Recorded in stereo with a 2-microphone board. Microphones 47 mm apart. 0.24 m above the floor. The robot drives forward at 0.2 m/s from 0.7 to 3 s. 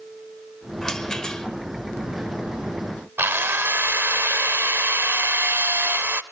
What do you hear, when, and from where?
0.8 s a rattle: 15° left (ahead or behind), 1.2 m
3.2 s a drill: 55° right (ahead or behind), 0.7 m